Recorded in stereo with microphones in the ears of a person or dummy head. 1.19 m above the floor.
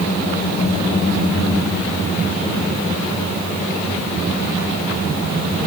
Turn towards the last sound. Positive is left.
No sound to turn to.